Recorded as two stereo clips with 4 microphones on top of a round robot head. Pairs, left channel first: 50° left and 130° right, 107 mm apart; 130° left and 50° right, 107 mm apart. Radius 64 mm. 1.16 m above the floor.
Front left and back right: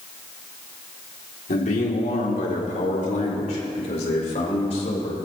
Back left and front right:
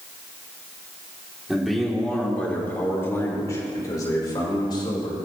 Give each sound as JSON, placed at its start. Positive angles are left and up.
{"t": 1.5, "sound": "a man speaking", "azimuth_deg": 40, "distance_m": 4.0}